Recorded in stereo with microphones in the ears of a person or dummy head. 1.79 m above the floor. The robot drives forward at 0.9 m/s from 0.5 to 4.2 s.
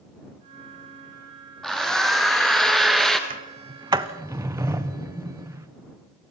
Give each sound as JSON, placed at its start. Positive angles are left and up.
{"t": 1.6, "sound": "a drill", "side_deg": 0, "distance_m": 2.0}
{"t": 3.3, "sound": "a sliding door", "side_deg": -35, "distance_m": 0.6}